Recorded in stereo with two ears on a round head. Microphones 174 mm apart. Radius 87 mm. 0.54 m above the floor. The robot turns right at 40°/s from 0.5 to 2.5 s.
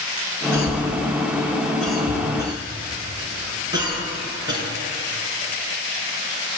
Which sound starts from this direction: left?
A cough, at 0.5 s.